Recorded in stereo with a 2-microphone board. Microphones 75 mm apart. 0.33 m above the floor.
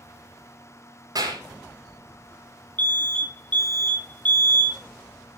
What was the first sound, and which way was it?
A clap, 55° right (ahead or behind).